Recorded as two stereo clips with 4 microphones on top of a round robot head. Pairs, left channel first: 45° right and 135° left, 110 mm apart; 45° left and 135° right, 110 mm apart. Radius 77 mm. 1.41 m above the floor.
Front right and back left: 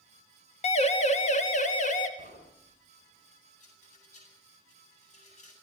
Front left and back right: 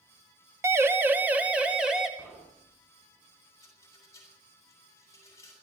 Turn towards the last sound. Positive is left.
turn(degrees=-20)